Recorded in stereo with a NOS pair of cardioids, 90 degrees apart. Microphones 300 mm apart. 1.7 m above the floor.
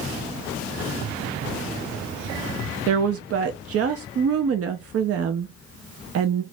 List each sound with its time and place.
2.9 s a woman speaking: 50° right, 0.6 m